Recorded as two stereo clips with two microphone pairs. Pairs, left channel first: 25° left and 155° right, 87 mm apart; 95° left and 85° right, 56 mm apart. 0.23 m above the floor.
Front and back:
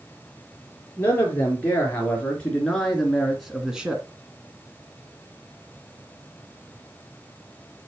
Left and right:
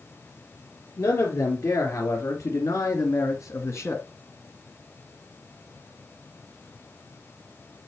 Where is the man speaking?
95° left, 3.5 m; by 4.0 s 125° left, 1.9 m.